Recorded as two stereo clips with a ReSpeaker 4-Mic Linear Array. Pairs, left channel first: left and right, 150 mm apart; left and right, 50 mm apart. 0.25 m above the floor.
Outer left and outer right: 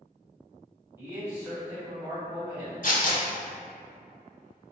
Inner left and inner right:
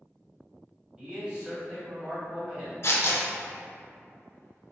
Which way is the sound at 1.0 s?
20° right (ahead or behind).